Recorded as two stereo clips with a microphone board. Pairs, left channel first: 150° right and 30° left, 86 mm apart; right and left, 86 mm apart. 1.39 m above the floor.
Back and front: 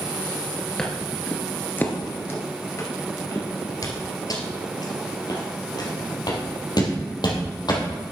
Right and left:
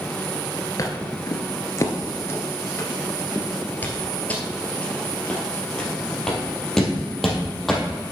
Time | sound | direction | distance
0.8 | footsteps | 70° right | 1.7 m